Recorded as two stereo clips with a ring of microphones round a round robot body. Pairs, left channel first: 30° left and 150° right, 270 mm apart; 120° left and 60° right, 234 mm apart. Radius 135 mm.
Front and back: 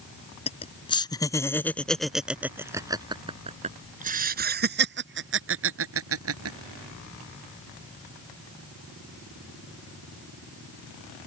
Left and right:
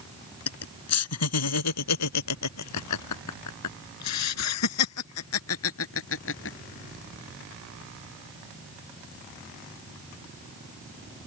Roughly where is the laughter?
Left.